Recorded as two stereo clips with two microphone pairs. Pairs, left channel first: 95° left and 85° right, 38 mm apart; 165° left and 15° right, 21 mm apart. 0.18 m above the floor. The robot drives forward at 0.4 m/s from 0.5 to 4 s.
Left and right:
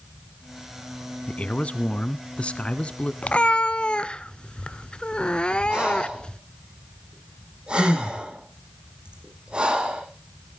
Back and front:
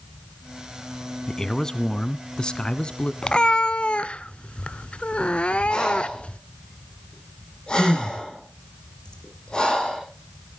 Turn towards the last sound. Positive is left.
turn(degrees=-145)